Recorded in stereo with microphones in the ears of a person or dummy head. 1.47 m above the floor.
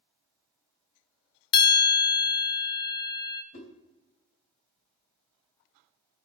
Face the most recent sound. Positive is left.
turn(degrees=50)  # may be behind; listen again after turning